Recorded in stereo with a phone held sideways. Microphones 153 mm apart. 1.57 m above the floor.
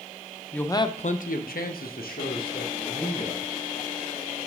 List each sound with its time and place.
0.5 s a man speaking: 10° left (ahead or behind), 0.6 m; by 3.4 s 70° left (ahead or behind), 2.5 m